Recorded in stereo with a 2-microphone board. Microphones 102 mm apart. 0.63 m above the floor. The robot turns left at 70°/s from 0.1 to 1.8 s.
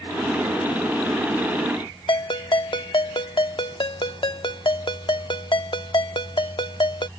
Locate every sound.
2.1 s a ringtone: 55° left (ahead or behind)